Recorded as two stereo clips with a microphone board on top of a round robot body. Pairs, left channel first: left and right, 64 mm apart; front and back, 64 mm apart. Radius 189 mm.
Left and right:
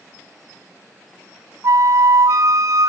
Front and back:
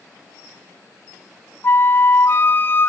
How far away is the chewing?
No chewing in this recording.